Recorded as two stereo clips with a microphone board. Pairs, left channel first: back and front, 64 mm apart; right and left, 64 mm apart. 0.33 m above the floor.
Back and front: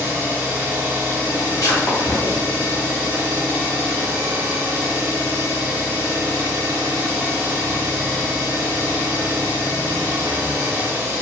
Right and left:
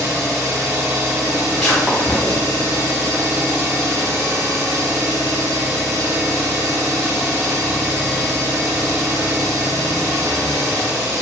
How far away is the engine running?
About 1.3 m.